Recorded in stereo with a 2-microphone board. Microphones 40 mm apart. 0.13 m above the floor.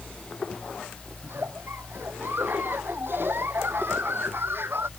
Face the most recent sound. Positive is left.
turn(degrees=-65)  # may be behind; listen again after turning